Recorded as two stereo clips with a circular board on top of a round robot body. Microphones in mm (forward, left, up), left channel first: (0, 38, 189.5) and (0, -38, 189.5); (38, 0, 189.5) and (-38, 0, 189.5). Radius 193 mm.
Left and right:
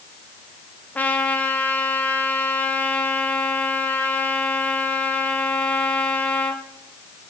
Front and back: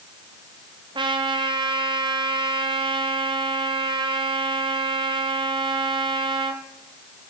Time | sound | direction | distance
0.9 | a trumpet | 160° left | 1.0 m